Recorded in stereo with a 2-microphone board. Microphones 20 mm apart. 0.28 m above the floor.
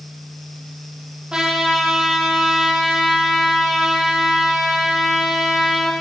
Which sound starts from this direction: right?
A trumpet, at 1.3 s.